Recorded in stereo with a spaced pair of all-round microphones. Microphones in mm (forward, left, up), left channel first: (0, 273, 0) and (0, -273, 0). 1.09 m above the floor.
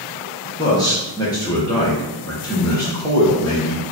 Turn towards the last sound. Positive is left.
turn(degrees=5)  # may be behind; listen again after turning